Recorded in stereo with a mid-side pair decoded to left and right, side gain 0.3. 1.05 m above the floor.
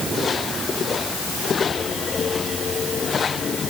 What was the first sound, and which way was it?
Only background noise.